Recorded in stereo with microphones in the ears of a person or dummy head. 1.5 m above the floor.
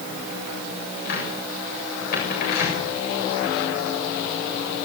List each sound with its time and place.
1.1 s a cupboard door: 55° left (ahead or behind), 7 m